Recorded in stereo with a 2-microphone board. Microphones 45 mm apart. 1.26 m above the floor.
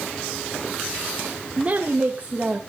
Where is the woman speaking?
30° right (ahead or behind), 1.6 m.